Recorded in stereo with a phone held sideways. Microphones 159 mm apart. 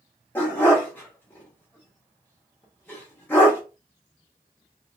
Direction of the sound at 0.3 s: 10° left (ahead or behind).